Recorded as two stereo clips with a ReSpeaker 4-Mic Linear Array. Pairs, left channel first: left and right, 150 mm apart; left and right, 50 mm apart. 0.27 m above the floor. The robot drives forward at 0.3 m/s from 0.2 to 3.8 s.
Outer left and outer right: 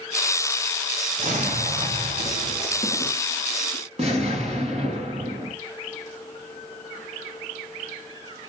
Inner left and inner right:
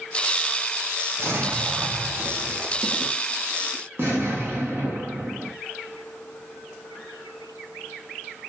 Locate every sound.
1.2 s an explosion: 60° right (ahead or behind), 2 m; by 5.5 s 50° right (ahead or behind), 2.5 m